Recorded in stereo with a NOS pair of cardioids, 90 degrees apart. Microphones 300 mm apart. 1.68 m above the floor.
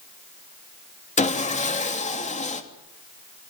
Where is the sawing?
25° left, 3 m.